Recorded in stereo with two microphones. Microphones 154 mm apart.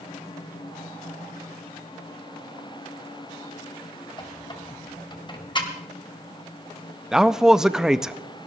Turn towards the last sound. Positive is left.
turn(degrees=-5)  # may be behind; listen again after turning